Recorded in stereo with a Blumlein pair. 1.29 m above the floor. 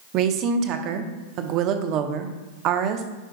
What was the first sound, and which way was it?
A woman speaking, 35° right.